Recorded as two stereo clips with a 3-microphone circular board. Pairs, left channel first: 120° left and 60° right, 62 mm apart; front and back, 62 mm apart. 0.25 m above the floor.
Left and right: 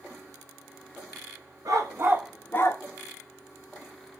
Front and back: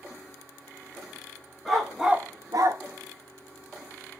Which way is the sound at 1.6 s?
85° right.